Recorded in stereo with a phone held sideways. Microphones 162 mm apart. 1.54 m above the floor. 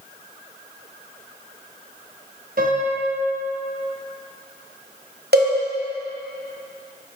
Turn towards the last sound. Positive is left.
turn(degrees=-80)